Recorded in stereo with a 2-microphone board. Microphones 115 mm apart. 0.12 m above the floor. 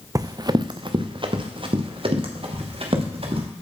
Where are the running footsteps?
30° right (ahead or behind), 0.6 m; by 3.5 s 55° right (ahead or behind), 3 m.